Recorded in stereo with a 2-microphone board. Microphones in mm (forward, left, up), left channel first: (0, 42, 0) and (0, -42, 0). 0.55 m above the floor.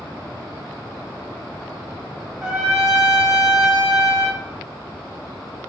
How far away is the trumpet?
About 0.9 m.